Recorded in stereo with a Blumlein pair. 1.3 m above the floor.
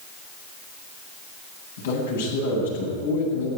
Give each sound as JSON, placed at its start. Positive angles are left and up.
{"t": 1.8, "sound": "a man speaking", "azimuth_deg": 65, "distance_m": 9.0}